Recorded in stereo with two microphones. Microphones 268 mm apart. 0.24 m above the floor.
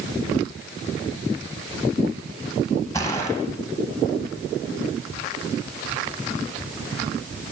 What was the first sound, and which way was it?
A gunshot, 15° left (ahead or behind).